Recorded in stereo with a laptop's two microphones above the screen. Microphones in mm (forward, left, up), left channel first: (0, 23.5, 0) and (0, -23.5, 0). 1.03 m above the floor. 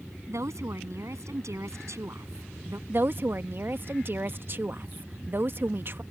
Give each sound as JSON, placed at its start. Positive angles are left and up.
{"t": 0.3, "sound": "a woman speaking", "side_deg": -85}
{"t": 2.9, "sound": "a woman speaking", "side_deg": -50}